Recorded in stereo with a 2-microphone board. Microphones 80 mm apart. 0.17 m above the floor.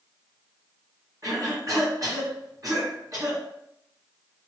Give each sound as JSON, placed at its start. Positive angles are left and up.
{"t": 1.2, "sound": "a cough", "side_deg": -45, "distance_m": 2.0}